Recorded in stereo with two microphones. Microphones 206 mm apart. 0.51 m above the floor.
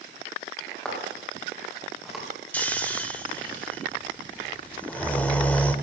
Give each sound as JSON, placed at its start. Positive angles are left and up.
{"t": 0.8, "sound": "footsteps", "side_deg": 5, "distance_m": 6.0}
{"t": 2.5, "sound": "snoring", "side_deg": 10, "distance_m": 1.0}